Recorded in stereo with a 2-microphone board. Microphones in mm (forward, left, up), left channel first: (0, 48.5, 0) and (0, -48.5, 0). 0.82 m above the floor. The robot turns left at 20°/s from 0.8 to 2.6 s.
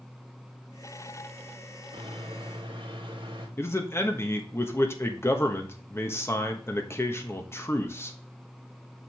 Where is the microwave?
70° right (ahead or behind), 2 m; by 3.5 s 55° right (ahead or behind), 2 m.